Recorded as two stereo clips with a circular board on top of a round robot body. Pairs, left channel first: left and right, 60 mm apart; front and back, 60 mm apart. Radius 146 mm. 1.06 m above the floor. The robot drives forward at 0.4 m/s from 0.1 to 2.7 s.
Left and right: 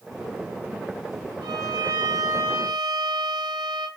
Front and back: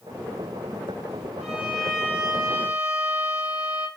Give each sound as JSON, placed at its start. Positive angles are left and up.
{"t": 1.4, "sound": "a violin", "azimuth_deg": -95, "distance_m": 3.0}